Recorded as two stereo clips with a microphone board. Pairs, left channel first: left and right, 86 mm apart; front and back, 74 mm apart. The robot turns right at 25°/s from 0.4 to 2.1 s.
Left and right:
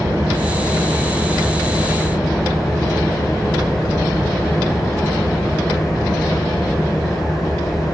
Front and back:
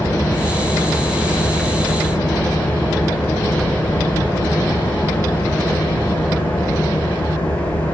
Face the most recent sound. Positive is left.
turn(degrees=5)